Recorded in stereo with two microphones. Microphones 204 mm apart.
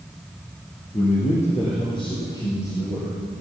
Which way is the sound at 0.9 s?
40° left (ahead or behind).